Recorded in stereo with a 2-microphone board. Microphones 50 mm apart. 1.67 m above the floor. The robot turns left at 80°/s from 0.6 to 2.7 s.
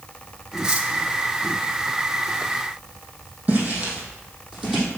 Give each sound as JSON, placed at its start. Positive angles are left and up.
{"t": 0.6, "sound": "cutlery clinking", "side_deg": -10, "distance_m": 1.1}
{"t": 3.5, "sound": "footsteps", "side_deg": -30, "distance_m": 3.5}